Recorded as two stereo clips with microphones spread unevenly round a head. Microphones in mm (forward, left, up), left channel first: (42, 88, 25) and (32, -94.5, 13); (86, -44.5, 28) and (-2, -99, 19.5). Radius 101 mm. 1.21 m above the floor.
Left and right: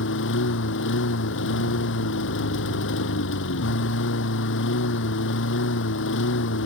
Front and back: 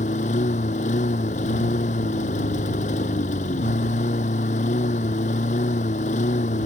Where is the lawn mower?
70° left.